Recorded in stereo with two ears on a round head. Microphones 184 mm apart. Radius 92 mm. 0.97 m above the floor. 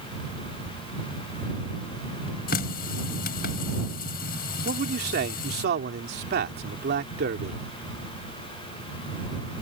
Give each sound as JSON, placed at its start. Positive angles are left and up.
{"t": 2.5, "sound": "a running tap", "side_deg": 45}
{"t": 4.7, "sound": "a man speaking", "side_deg": -50}